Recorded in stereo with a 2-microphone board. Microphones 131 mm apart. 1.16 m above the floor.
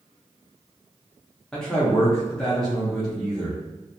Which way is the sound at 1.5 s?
5° left (ahead or behind).